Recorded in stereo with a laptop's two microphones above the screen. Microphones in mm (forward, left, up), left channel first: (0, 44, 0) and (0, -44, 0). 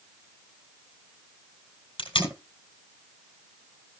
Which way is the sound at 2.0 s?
75° left (ahead or behind).